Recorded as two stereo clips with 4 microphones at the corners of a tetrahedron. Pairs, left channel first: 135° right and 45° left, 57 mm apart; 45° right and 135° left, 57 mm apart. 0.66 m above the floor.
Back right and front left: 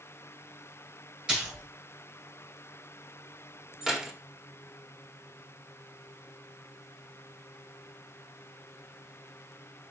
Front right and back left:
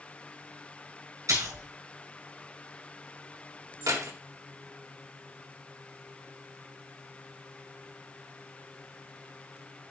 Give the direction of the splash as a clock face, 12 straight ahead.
8 o'clock.